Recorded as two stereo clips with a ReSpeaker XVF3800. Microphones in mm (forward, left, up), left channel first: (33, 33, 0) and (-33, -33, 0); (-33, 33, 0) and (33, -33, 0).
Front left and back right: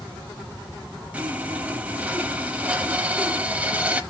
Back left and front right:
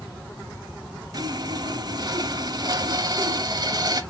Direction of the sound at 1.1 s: 65° right.